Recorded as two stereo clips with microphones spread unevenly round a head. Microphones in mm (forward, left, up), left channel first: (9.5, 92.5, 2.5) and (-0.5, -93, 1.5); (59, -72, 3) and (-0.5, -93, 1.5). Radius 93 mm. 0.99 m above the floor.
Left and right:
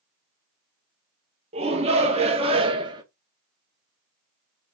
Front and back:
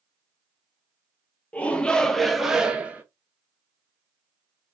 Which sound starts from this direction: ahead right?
A shout, at 1.5 s.